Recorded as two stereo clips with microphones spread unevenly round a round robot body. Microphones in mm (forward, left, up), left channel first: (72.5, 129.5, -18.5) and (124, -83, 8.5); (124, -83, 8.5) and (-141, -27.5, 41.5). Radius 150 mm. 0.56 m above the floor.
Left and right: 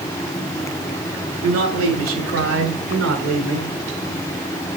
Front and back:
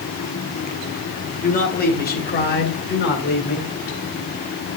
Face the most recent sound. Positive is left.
turn(degrees=-60)